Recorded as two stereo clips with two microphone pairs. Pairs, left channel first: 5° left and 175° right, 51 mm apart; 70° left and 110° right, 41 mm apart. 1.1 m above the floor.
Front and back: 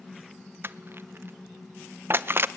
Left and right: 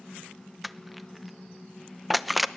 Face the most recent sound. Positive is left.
turn(degrees=160)